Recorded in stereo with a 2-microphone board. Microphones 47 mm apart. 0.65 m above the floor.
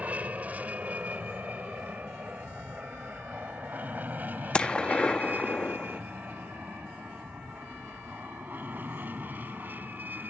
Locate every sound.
0.0 s an aircraft: 30° right (ahead or behind); by 10.3 s 40° right (ahead or behind)
4.5 s a gunshot: 20° left (ahead or behind)